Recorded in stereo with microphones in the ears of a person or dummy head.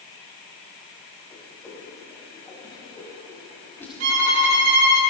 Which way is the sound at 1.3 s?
15° left (ahead or behind).